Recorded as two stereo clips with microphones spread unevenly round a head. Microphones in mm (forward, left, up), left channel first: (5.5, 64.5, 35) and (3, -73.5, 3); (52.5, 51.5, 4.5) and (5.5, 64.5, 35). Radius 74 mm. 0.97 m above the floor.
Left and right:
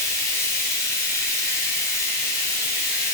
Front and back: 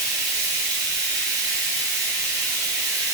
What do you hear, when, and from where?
0.0 s running water: 165° left, 1.2 m